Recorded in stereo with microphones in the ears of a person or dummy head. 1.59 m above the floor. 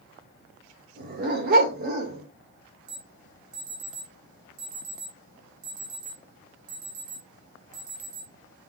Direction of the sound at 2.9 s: 50° right (ahead or behind).